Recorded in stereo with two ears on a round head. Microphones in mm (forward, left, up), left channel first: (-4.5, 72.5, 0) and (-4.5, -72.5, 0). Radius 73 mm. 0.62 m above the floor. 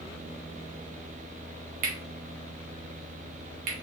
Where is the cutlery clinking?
55° right (ahead or behind), 1.7 m.